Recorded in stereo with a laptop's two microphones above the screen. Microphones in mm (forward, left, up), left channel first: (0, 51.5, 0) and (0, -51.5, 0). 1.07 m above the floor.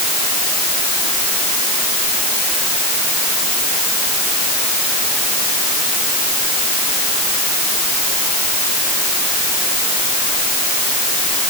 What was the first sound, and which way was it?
Only background noise.